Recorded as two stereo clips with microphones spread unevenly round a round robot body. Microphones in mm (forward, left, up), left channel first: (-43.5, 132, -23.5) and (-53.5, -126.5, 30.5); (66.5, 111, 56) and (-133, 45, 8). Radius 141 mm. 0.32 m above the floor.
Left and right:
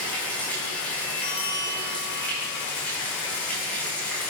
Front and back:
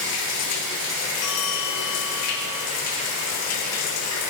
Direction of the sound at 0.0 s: Straight ahead.